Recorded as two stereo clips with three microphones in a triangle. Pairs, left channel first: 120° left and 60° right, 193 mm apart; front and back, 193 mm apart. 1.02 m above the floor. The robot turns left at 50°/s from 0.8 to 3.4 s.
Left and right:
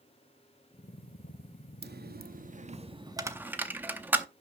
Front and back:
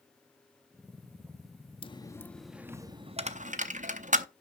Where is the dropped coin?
60° right, 0.6 m; by 4.2 s 140° right, 0.6 m.